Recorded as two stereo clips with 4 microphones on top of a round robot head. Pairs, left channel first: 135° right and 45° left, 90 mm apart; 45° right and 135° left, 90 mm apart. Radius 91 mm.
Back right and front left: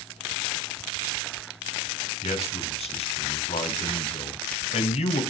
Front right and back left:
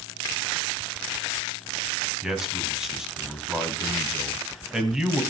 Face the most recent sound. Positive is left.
turn(degrees=-140)